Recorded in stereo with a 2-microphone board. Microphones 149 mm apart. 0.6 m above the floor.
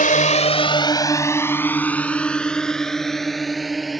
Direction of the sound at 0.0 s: 65° left (ahead or behind).